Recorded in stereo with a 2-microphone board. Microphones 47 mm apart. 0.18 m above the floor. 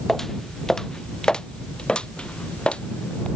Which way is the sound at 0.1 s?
5° left (ahead or behind).